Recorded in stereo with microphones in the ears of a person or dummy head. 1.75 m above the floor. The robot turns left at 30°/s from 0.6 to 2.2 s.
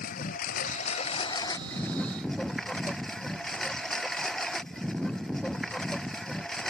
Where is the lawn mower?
55° left; by 6.7 s 5° left.